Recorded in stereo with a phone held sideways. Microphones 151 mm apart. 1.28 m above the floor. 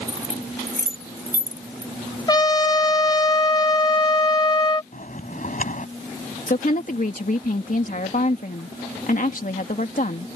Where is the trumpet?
30° left (ahead or behind).